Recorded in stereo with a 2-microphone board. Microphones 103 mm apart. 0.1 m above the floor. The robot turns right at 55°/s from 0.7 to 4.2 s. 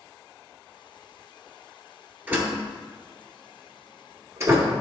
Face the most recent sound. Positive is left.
turn(degrees=-30)  # may be behind; listen again after turning